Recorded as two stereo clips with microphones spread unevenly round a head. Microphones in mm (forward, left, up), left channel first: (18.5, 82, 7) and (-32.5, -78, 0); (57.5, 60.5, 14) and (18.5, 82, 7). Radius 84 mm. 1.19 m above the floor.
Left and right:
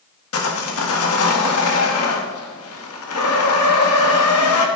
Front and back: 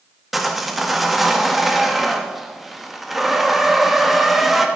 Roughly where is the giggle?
No giggle in this recording.